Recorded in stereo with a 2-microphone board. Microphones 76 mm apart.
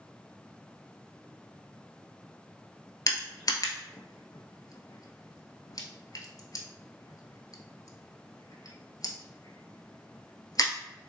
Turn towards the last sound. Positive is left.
turn(degrees=55)  # may be behind; listen again after turning